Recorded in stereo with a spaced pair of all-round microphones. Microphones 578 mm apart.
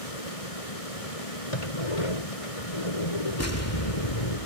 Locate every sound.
0.0 s running water: 75° left (ahead or behind)
1.5 s a sliding door: 65° left (ahead or behind)
3.4 s an explosion: 25° left (ahead or behind)